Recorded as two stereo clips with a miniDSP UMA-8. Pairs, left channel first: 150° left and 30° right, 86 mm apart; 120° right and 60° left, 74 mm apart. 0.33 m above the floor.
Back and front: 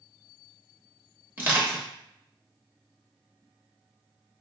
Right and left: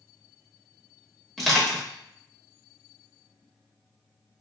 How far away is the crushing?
About 1.0 m.